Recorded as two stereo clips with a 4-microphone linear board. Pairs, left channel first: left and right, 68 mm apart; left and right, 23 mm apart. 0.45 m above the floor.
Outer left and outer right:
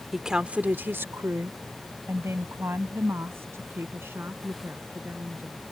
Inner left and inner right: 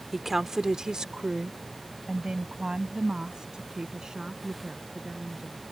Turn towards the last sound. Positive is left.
turn(degrees=-35)  # may be behind; listen again after turning